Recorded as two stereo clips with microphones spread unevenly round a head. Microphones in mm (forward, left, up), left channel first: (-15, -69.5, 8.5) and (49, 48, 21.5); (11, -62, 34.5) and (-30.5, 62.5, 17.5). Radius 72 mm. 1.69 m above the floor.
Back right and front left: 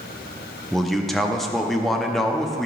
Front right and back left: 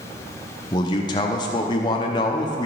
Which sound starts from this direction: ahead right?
A man speaking, at 0.7 s.